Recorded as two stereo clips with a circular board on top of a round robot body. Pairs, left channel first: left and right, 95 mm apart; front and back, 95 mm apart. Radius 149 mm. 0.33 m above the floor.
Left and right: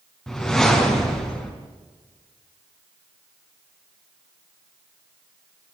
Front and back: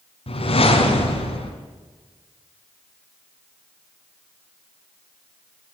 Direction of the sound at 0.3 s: 5° left.